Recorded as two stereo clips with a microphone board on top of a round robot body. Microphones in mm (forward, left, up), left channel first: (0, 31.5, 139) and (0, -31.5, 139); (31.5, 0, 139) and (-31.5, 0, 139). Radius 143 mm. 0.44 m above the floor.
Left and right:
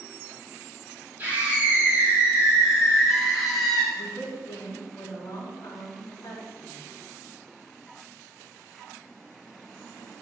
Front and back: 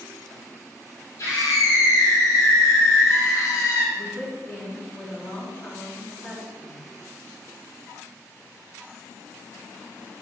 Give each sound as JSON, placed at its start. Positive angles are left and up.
{"t": 1.2, "sound": "a scream", "azimuth_deg": -30, "distance_m": 5.0}
{"t": 3.9, "sound": "a woman speaking", "azimuth_deg": 55, "distance_m": 5.0}